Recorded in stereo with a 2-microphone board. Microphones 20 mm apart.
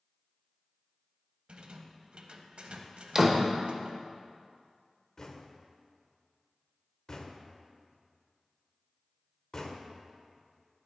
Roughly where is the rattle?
Right.